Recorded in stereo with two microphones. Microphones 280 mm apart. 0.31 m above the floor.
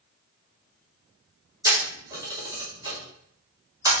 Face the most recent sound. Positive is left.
turn(degrees=-10)  # may be behind; listen again after turning